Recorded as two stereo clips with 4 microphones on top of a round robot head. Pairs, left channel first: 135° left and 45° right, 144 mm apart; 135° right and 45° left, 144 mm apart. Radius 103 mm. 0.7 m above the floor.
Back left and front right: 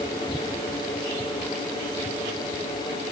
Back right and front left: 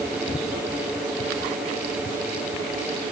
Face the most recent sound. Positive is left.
No sound to turn to.